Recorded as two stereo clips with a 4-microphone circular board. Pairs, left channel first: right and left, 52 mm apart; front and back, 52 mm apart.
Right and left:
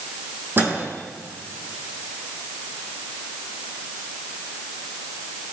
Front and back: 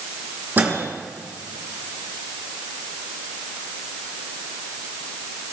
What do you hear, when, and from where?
0.6 s a microwave: 130° left, 2.5 m